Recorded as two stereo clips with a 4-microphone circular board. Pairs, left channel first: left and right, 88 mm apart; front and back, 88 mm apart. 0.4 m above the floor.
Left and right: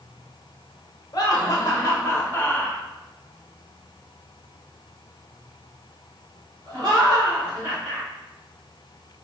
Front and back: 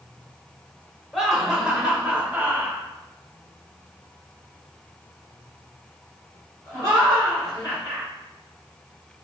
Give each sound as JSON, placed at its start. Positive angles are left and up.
{"t": 1.1, "sound": "laughter", "azimuth_deg": 95, "distance_m": 1.2}